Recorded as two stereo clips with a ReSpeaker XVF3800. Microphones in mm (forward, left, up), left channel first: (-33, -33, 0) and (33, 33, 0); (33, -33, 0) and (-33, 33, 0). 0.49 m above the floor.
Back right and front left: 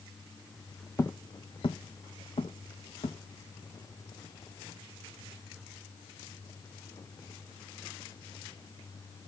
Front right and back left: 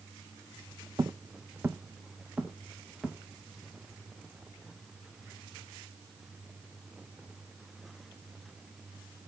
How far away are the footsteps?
About 0.9 m.